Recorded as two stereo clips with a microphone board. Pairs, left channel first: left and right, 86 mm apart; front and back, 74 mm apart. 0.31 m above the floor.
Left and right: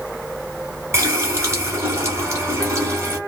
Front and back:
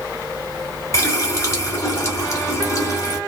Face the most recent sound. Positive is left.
turn(degrees=-40)